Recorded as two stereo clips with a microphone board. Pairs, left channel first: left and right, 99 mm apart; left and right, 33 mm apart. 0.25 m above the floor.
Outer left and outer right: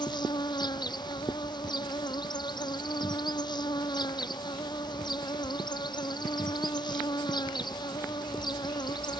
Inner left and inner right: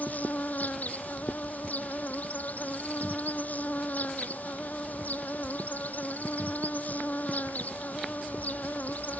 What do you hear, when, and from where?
0.0 s an insect: 45° left (ahead or behind)